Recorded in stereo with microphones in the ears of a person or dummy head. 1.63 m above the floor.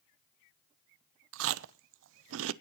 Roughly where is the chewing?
Right.